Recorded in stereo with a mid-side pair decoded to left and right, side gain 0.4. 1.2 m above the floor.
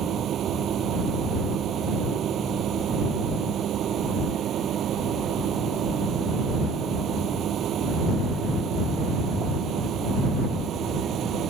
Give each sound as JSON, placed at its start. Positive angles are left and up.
{"t": 0.0, "sound": "a machine running", "azimuth_deg": -70}